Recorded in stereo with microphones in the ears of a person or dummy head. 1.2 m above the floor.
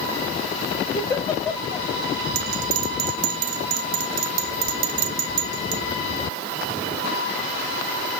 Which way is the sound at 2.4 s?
50° right (ahead or behind).